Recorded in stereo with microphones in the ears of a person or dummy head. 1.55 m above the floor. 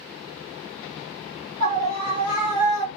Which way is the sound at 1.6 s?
55° right (ahead or behind).